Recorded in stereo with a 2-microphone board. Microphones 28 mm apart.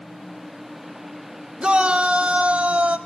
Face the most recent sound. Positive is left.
turn(degrees=-55)  # may be behind; listen again after turning